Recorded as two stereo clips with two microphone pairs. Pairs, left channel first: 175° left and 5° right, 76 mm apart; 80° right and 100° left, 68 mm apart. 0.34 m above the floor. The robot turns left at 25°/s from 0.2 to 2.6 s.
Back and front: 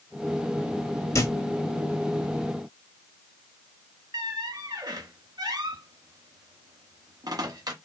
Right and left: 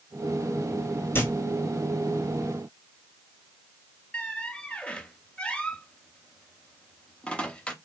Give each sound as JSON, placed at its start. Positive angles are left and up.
{"t": 1.1, "sound": "a thud", "azimuth_deg": -140, "distance_m": 0.9}
{"t": 4.1, "sound": "a squeak", "azimuth_deg": -10, "distance_m": 0.6}